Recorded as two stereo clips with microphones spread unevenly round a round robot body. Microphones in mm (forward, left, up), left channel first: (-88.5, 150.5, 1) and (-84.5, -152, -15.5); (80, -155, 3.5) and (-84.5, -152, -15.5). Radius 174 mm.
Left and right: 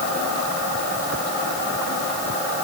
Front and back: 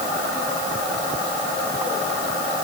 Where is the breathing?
No breathing in this recording.